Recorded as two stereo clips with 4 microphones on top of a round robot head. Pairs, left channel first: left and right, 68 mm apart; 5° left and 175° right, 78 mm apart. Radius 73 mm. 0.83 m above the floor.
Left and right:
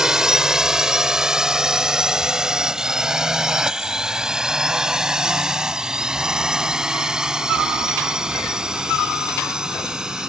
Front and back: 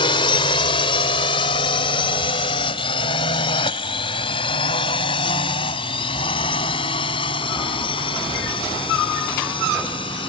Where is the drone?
10° right.